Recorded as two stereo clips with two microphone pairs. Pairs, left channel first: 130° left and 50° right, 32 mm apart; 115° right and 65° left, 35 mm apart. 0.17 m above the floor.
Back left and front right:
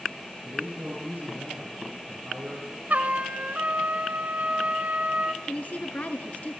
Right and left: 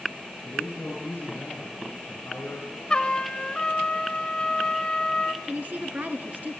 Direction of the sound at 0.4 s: 85° right.